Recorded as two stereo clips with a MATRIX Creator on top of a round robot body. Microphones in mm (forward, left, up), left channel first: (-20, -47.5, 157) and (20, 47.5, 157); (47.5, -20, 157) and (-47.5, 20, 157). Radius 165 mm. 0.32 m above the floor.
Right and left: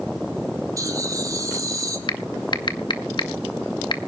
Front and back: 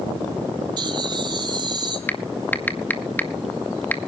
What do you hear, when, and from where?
0.8 s laughter: 120° left, 3.5 m
2.1 s typing on a keyboard: 90° right, 2 m